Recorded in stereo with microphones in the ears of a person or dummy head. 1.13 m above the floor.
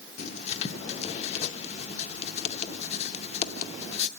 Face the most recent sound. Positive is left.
turn(degrees=45)  # may be behind; listen again after turning